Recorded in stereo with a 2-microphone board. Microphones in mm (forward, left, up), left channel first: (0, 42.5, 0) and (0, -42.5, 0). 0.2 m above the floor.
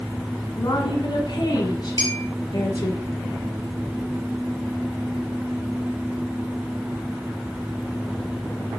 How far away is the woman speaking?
About 1.6 m.